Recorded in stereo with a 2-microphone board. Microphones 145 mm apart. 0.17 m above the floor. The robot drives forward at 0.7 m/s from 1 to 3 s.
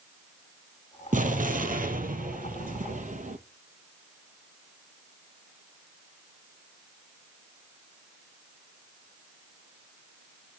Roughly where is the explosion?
Right.